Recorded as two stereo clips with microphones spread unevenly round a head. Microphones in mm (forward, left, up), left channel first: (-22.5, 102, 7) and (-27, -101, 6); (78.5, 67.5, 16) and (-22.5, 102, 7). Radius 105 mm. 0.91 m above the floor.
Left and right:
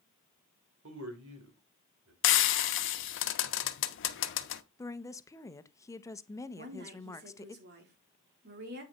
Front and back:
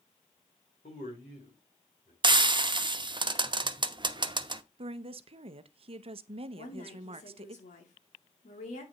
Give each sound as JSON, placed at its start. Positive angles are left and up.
{"t": 0.8, "sound": "a man speaking", "azimuth_deg": -65, "distance_m": 3.0}
{"t": 2.2, "sound": "frying", "azimuth_deg": 115, "distance_m": 0.9}
{"t": 4.8, "sound": "a woman speaking", "azimuth_deg": 160, "distance_m": 0.7}
{"t": 6.5, "sound": "a woman speaking", "azimuth_deg": -50, "distance_m": 2.5}